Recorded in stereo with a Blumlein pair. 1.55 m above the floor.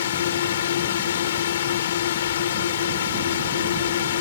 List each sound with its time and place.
0.0 s a drone: 60° left